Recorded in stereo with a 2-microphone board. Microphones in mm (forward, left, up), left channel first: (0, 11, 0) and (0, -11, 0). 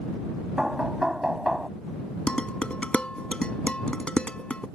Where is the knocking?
30° right (ahead or behind).